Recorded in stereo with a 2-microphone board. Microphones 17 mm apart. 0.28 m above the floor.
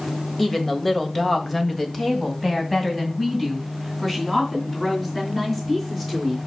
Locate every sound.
0.4 s a woman speaking: 20° left (ahead or behind), 1.4 m; by 6.4 s 10° left (ahead or behind), 5 m